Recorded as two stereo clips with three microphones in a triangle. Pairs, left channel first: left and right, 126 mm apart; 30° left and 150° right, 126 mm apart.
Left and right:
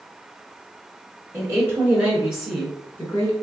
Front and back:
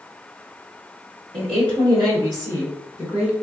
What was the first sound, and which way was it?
A woman speaking, 150° right.